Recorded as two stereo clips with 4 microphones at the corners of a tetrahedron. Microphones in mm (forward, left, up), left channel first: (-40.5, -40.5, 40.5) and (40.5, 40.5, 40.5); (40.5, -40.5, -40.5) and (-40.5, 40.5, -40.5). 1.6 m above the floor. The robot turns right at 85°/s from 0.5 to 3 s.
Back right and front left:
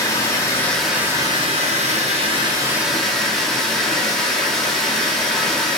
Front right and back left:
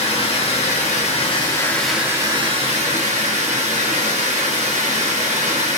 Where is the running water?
70° right, 0.9 m; by 5.8 s 140° left, 0.9 m.